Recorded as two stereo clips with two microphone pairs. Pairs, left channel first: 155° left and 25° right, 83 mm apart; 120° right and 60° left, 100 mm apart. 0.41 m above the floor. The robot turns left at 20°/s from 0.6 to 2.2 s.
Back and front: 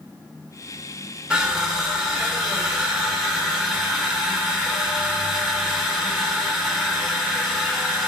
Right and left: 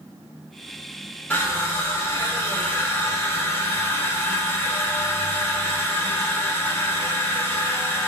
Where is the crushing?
90° right, 1.0 m; by 8.1 s 110° right, 1.0 m.